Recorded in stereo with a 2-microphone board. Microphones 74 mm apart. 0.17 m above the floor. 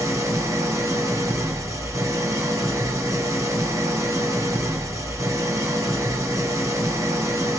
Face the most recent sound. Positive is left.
turn(degrees=-50)  # may be behind; listen again after turning